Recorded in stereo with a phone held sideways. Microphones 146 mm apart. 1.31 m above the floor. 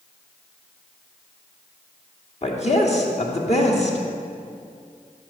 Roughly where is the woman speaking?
Left.